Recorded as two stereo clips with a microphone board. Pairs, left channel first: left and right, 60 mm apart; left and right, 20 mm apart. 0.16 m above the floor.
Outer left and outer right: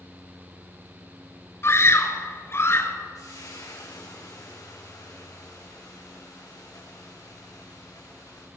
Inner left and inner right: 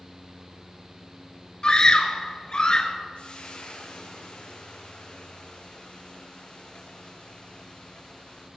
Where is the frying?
75° left (ahead or behind), 6 m.